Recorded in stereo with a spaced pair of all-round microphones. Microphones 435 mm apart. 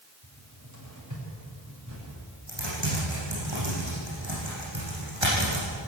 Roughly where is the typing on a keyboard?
Right.